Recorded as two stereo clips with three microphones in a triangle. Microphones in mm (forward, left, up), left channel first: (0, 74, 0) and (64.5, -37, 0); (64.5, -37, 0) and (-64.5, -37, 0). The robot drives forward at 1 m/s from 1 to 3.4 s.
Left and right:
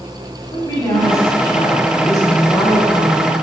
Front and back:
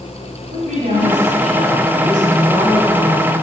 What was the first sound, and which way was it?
A woman speaking, straight behind.